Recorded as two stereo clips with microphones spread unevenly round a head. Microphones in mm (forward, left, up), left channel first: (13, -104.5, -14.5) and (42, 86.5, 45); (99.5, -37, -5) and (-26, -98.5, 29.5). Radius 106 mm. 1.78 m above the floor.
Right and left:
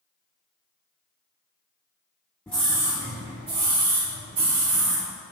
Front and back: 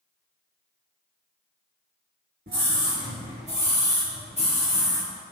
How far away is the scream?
About 1.6 m.